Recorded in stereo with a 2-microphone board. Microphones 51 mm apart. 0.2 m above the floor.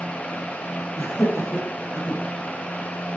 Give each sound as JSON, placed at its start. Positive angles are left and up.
{"t": 1.0, "sound": "laughter", "side_deg": 65, "distance_m": 5.0}